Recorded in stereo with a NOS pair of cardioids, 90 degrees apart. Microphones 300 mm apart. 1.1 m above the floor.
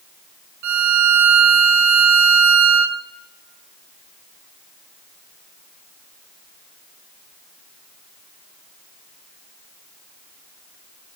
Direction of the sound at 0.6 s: 65° right.